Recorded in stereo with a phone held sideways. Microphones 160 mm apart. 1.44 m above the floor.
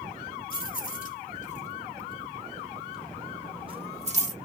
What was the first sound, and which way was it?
Keys jangling, 60° left (ahead or behind).